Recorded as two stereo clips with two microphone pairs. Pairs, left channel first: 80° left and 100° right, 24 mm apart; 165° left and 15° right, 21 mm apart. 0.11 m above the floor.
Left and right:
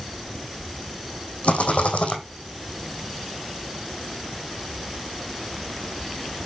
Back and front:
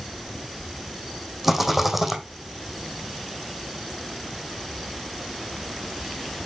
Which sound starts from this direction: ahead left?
A rattle, at 1.4 s.